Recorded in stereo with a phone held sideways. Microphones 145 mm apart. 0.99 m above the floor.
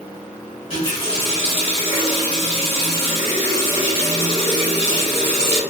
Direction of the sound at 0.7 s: 40° left (ahead or behind).